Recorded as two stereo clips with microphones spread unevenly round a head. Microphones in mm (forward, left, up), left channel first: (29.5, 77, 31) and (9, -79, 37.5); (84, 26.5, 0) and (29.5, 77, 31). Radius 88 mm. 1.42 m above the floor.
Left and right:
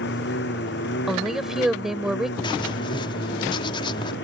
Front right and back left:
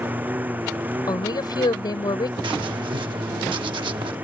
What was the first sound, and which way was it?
A lawn mower, 70° left.